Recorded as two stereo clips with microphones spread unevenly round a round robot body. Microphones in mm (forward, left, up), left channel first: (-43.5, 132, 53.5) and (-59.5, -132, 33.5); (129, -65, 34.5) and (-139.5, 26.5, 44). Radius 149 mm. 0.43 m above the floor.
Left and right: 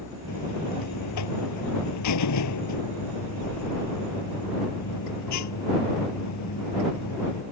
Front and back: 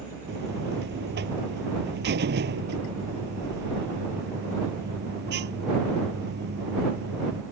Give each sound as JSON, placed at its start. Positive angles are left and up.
{"t": 0.3, "sound": "a buzzer", "azimuth_deg": 105}